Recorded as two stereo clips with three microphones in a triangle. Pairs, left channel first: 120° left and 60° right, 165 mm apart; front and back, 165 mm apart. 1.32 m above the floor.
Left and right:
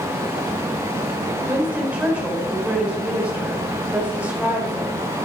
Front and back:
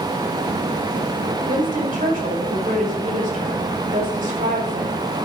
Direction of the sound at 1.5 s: 140° right.